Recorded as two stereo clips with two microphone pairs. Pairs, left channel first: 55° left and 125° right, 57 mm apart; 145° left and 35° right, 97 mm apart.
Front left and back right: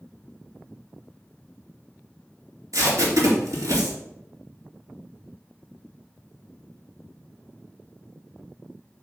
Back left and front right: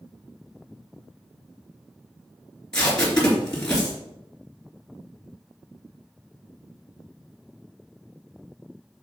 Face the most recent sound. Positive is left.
turn(degrees=-130)